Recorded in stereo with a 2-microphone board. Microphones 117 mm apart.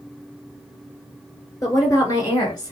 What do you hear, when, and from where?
1.6 s a woman speaking: 25° left (ahead or behind), 2.5 m; by 2.7 s 35° left (ahead or behind), 2 m